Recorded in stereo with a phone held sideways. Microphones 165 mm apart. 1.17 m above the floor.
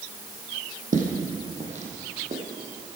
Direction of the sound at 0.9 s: 50° right (ahead or behind).